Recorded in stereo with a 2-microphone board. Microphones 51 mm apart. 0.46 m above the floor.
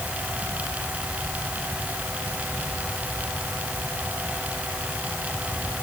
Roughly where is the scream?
I don't hear a scream.